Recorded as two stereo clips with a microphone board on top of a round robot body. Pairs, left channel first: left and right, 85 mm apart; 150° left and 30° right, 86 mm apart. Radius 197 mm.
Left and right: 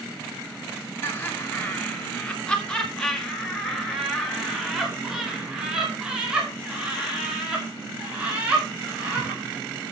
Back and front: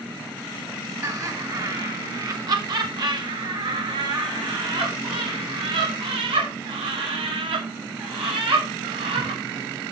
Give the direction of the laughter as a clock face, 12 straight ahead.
11 o'clock.